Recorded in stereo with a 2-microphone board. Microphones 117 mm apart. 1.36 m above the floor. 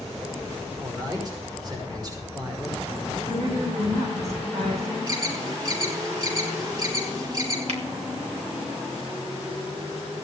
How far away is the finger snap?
About 2 m.